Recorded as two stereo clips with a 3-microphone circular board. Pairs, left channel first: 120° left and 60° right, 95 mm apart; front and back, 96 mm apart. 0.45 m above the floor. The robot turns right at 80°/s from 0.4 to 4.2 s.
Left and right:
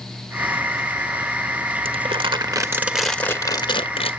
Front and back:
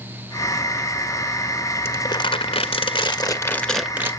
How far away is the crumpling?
About 1.6 m.